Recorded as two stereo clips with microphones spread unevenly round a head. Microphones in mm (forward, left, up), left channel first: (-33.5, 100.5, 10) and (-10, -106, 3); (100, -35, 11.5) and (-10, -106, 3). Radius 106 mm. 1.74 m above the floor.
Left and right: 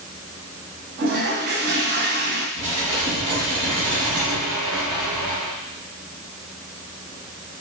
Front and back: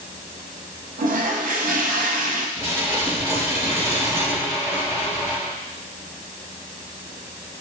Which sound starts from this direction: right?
Dishes clattering, at 2.6 s.